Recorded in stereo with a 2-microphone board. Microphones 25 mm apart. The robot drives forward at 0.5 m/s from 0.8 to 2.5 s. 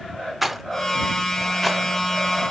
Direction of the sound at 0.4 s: 10° right (ahead or behind).